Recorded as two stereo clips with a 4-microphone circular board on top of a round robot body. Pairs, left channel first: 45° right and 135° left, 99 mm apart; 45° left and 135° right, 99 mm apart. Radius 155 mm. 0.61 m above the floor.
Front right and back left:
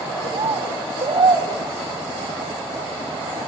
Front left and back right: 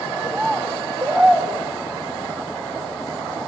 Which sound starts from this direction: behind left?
A bird, at 0.2 s.